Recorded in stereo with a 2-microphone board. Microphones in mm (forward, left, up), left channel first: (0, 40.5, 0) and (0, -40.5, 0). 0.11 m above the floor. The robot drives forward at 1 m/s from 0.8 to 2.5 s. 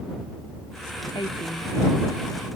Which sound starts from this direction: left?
A woman speaking, at 1.1 s.